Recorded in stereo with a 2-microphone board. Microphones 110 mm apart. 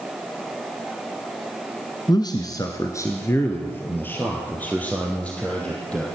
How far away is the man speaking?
About 1.5 m.